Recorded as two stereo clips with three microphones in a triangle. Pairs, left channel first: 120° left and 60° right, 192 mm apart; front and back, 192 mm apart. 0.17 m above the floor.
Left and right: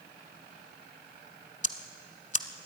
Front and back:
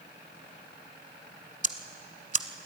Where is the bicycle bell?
I don't hear a bicycle bell.